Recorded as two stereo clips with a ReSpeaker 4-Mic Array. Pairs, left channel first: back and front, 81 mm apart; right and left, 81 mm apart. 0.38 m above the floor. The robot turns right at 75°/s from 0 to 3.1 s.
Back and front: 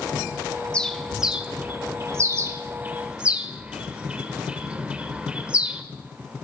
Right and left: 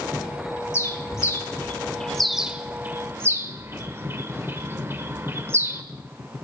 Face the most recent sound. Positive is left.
turn(degrees=65)